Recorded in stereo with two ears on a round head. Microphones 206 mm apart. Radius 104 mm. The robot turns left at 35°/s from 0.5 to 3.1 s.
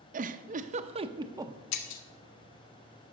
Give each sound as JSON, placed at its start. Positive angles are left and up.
{"t": 0.1, "sound": "a giggle", "side_deg": -35, "distance_m": 0.5}
{"t": 1.7, "sound": "breaking glass", "side_deg": 75, "distance_m": 1.1}